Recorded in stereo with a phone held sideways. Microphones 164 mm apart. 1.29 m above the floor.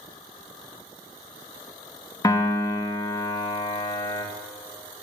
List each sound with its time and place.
2.2 s a piano: 25° left (ahead or behind), 0.6 m